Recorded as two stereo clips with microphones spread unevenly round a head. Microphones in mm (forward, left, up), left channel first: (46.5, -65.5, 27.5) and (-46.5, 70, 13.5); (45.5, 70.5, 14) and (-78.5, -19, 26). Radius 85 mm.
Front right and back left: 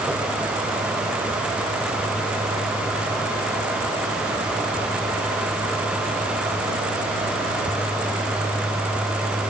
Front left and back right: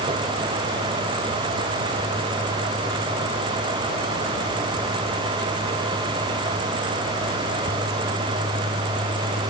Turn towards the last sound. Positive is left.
No sound to turn to.